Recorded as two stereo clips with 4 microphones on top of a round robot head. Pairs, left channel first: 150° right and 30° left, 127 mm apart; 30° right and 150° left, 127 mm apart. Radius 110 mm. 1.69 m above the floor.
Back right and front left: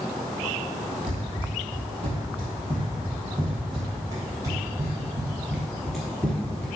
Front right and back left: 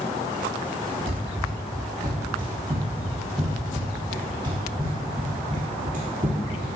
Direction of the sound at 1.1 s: 75° left.